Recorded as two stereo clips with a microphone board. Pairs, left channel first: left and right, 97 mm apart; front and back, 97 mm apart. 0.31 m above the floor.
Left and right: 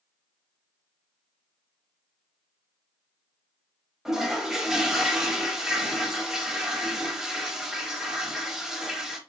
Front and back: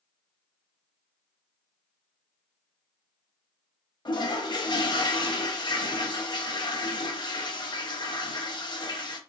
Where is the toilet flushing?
10° right, 0.6 m.